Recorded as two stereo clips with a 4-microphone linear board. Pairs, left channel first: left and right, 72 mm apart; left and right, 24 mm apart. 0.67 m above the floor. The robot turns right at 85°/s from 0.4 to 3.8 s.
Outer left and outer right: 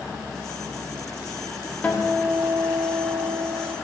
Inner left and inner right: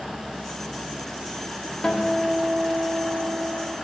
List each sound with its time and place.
1.8 s a guitar: 155° left, 1.4 m; by 3.8 s 40° right, 1.4 m